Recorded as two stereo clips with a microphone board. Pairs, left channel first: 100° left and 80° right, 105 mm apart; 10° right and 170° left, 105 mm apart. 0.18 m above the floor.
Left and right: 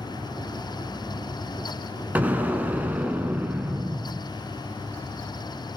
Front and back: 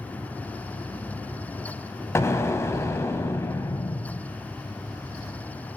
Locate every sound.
2.1 s an explosion: 30° right, 1.2 m